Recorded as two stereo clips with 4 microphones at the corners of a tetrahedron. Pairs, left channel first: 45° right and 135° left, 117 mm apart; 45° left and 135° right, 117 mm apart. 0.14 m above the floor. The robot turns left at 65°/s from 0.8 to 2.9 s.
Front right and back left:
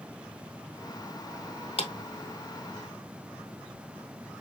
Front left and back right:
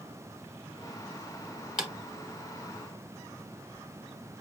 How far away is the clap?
About 1.7 m.